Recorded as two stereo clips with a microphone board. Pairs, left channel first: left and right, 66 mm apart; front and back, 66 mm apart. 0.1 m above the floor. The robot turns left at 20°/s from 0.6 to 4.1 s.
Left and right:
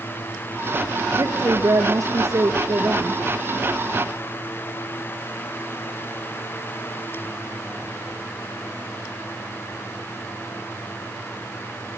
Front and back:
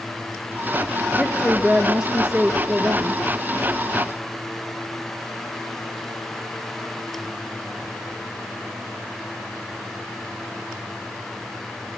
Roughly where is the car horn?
No car horn in this recording.